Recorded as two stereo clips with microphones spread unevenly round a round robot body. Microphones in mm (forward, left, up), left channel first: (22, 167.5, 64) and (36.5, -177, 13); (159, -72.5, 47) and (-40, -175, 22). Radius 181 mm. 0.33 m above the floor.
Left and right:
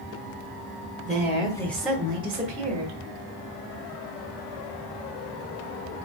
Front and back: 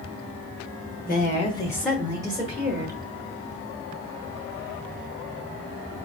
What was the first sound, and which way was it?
A woman speaking, 25° left.